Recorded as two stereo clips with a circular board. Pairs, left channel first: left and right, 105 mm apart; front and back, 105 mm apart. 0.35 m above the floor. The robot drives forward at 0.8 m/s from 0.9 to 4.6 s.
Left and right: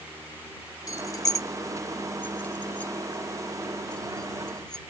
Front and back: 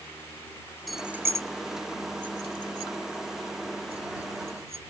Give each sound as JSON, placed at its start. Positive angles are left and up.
{"t": 0.9, "sound": "keys jangling", "azimuth_deg": 90}